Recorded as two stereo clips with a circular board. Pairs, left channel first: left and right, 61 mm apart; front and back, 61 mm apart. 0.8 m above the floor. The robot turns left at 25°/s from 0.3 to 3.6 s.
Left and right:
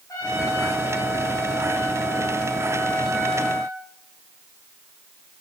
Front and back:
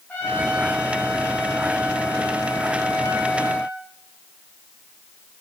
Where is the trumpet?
65° left, 5 m; by 3.8 s 20° right, 5 m.